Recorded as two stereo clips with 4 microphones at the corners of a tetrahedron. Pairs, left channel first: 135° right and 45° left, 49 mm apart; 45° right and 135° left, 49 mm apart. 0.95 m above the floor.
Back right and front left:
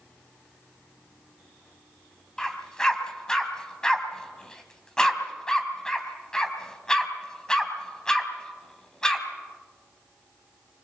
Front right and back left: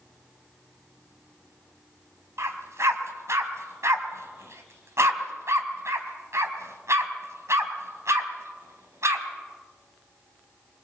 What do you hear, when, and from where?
2.4 s a dog barking: 150° left, 3 m